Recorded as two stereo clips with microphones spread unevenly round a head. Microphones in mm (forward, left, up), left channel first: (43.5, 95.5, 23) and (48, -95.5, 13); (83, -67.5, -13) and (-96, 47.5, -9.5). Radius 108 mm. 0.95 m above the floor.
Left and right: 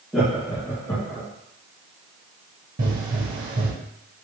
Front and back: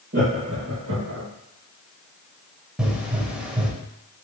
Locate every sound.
0.1 s laughter: 175° right, 1.3 m; by 1.3 s 160° left, 1.8 m
2.8 s a pop: 130° right, 0.9 m